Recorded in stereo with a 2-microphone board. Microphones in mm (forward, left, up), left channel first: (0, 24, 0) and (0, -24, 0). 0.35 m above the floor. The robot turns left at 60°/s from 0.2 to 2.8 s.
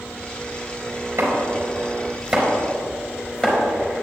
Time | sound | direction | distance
1.2 | chopping | 75° right (ahead or behind) | 4 m